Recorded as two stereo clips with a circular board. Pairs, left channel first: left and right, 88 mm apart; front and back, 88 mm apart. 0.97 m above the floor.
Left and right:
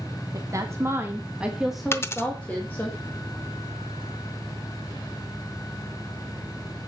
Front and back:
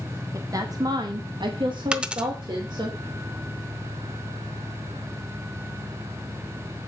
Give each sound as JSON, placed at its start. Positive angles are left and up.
{"t": 0.3, "sound": "a woman speaking", "azimuth_deg": -135, "distance_m": 1.6}
{"t": 1.9, "sound": "a dropped coin", "azimuth_deg": 110, "distance_m": 0.7}